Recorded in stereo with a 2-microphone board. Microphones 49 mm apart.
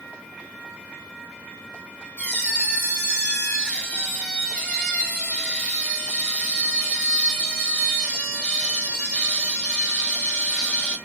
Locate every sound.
2.2 s a squeak: 25° left (ahead or behind), 1.8 m